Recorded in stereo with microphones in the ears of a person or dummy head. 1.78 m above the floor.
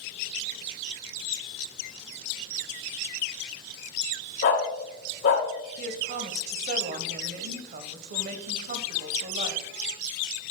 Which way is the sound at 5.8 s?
55° right (ahead or behind).